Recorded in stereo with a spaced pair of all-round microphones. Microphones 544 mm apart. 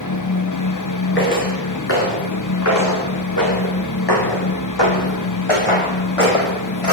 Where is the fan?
35° left (ahead or behind), 0.7 m.